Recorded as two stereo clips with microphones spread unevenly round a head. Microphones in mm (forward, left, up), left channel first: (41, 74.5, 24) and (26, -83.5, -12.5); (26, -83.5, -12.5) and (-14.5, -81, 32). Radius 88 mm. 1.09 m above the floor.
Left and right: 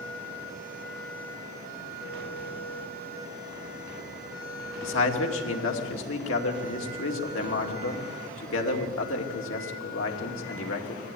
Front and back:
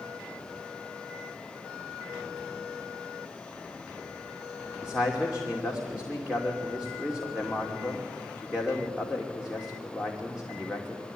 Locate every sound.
4.8 s a man speaking: 85° left, 2.5 m